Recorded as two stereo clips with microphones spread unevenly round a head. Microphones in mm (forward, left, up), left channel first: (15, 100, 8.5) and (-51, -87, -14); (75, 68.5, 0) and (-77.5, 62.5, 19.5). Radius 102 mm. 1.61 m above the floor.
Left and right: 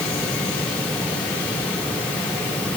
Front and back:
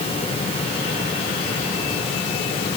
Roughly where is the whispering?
No whispering in this recording.